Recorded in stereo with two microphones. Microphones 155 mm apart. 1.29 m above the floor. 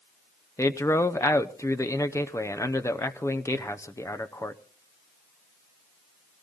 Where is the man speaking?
20° left (ahead or behind), 0.7 m.